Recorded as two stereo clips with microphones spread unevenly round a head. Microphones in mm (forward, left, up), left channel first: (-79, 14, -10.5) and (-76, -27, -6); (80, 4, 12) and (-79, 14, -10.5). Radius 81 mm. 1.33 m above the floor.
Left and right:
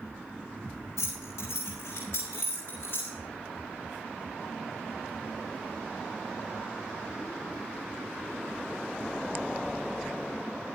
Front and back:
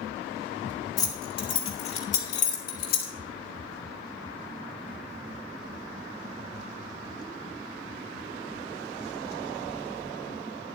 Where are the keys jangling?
65° left, 2.5 m; by 3.1 s 25° left, 2.5 m.